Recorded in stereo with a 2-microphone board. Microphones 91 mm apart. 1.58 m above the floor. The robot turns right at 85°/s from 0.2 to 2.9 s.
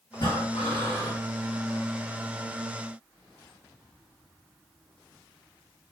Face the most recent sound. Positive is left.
turn(degrees=-75)